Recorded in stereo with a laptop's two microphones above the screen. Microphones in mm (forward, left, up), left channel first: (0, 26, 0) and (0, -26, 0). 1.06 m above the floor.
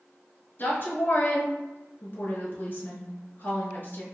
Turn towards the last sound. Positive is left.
turn(degrees=45)  # may be behind; listen again after turning